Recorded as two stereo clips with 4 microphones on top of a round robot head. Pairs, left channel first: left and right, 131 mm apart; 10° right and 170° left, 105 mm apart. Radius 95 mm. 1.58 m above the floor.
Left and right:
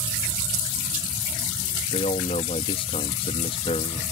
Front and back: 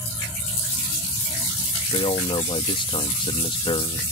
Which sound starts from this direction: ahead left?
A man speaking, at 1.9 s.